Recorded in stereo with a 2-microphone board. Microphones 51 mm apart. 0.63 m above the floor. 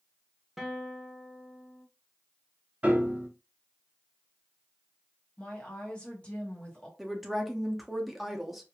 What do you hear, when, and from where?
0.6 s a guitar: 5° right (ahead or behind), 0.6 m
2.8 s a piano: 30° right (ahead or behind), 0.7 m
5.4 s a woman speaking: 20° left (ahead or behind), 1.0 m
7.0 s a woman speaking: centre (ahead or behind), 0.6 m